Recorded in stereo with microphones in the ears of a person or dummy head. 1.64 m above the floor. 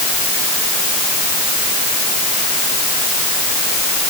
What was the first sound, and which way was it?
Only background noise.